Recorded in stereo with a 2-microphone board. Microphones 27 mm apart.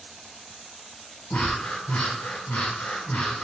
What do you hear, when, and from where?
1.3 s breathing: 75° left (ahead or behind), 1.0 m